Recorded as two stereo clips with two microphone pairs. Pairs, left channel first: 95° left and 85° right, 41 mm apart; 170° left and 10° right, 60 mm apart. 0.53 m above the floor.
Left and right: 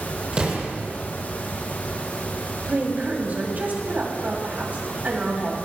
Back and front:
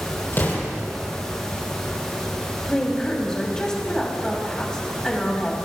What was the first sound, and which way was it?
An explosion, 145° right.